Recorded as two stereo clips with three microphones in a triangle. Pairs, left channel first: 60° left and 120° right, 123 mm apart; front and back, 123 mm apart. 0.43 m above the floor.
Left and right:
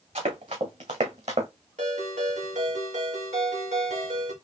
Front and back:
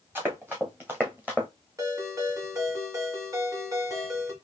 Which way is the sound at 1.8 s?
120° right.